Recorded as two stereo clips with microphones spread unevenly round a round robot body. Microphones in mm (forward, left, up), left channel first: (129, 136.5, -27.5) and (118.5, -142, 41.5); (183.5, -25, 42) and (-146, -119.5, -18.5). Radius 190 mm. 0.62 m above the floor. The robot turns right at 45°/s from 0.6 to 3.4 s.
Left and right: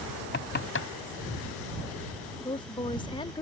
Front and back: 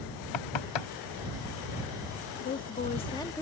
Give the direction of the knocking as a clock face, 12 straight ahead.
11 o'clock.